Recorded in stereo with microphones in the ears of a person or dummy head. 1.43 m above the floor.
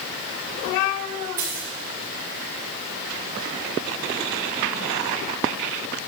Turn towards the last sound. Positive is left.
turn(degrees=-15)  # may be behind; listen again after turning